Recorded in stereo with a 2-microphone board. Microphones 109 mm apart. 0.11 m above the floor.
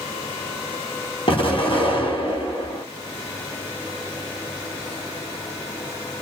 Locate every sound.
1.3 s an explosion: 55° left (ahead or behind), 1.3 m